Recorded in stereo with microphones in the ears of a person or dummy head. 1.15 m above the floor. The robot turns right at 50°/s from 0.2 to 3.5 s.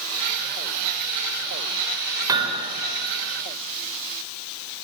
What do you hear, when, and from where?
2.3 s hammering: 20° right (ahead or behind), 3.5 m; by 2.7 s 40° right (ahead or behind), 3.5 m